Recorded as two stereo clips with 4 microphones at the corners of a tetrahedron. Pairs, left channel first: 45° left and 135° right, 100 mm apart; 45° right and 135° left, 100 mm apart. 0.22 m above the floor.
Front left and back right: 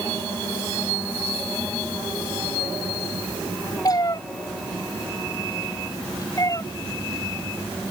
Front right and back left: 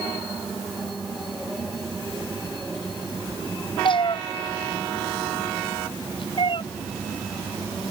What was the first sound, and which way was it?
A cat meowing, 5° right.